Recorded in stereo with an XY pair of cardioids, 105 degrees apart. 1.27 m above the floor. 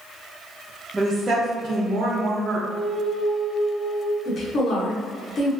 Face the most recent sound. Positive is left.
turn(degrees=50)